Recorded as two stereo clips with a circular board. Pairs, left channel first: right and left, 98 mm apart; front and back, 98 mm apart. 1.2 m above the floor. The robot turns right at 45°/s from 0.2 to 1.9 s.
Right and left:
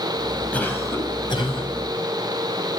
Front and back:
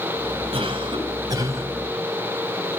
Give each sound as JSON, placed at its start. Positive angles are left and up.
{"t": 0.5, "sound": "a cough", "azimuth_deg": -165, "distance_m": 8.5}